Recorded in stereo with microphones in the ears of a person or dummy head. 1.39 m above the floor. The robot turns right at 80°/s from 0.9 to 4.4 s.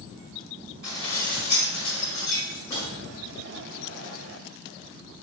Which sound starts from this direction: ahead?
Dishes clattering, at 0.8 s.